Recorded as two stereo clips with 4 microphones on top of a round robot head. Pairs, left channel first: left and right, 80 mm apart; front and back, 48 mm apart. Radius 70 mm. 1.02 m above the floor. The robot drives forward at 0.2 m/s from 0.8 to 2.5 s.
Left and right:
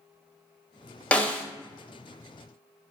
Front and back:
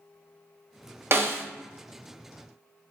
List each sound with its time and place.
1.1 s a snare drum: 160° left, 0.6 m; by 1.4 s 165° left, 0.6 m